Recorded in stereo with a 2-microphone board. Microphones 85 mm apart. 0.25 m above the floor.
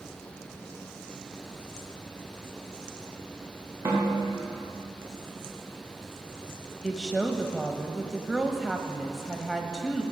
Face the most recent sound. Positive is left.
turn(degrees=-5)  # may be behind; listen again after turning